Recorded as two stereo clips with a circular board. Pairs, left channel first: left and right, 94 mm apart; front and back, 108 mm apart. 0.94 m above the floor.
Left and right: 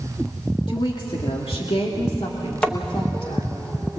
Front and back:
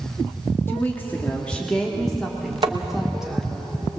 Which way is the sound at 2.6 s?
160° left.